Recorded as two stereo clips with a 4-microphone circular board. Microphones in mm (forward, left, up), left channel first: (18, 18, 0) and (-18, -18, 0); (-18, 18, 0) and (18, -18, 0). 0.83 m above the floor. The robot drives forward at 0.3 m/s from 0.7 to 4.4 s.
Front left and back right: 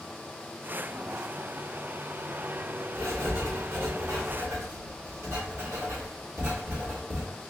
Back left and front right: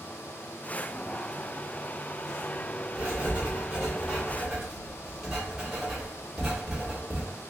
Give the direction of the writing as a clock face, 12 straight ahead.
4 o'clock.